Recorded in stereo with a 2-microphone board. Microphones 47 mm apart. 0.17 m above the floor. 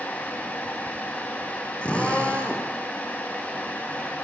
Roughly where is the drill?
Left.